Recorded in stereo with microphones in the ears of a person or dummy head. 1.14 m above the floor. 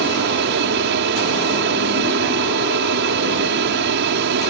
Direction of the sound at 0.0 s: 55° right (ahead or behind).